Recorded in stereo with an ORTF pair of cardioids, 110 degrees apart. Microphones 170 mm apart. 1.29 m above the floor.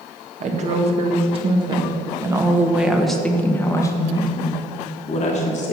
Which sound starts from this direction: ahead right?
A woman speaking, at 0.4 s.